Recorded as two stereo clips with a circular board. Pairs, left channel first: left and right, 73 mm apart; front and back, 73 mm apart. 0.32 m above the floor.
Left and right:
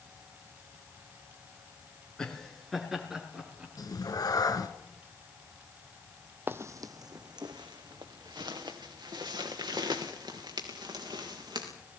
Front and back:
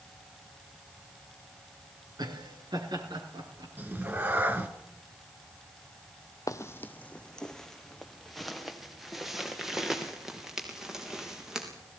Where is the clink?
I don't hear a clink.